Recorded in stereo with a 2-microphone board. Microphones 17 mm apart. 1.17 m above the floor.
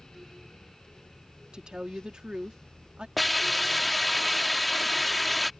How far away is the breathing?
I don't hear breathing.